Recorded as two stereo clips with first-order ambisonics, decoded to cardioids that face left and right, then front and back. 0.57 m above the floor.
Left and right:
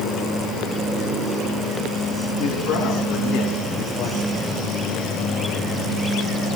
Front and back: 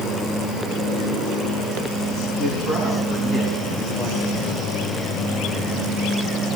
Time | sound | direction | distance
2.4 | a man speaking | 55° left | 5.5 m